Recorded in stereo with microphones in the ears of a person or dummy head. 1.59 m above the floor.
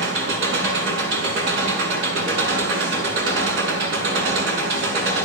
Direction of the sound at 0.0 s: 75° right (ahead or behind).